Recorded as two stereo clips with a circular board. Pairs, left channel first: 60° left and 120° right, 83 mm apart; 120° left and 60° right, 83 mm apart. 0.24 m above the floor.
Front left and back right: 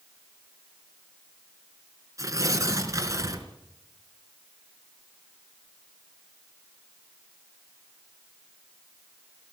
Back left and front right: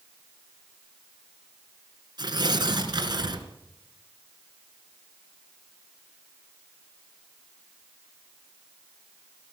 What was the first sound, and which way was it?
Tearing paper, 75° right.